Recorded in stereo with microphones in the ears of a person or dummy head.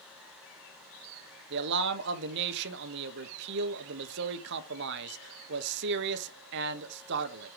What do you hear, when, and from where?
1.5 s a man speaking: 65° right (ahead or behind), 1.4 m